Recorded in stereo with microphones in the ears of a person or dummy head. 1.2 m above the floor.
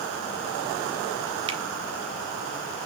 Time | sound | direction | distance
1.5 | a finger snap | 25° right (ahead or behind) | 1.0 m